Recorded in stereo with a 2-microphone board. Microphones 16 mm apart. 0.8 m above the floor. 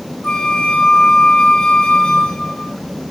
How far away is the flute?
About 1.8 m.